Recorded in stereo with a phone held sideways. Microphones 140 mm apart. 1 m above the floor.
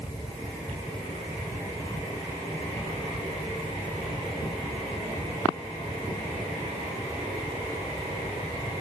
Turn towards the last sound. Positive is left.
turn(degrees=30)  # may be behind; listen again after turning